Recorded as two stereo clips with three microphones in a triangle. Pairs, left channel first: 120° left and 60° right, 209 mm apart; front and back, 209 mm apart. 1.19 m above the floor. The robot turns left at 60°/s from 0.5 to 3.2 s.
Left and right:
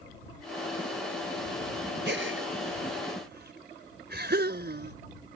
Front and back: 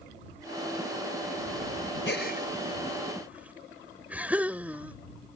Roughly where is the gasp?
Ahead right.